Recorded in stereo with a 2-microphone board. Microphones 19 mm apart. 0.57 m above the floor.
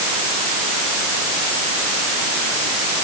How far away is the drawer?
I don't hear a drawer.